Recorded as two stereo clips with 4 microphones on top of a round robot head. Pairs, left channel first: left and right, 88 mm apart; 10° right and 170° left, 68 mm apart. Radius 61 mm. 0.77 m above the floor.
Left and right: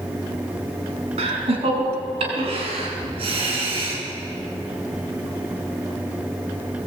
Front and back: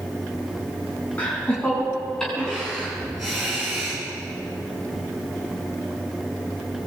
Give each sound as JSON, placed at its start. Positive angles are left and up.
{"t": 1.2, "sound": "laughter", "azimuth_deg": -85, "distance_m": 7.0}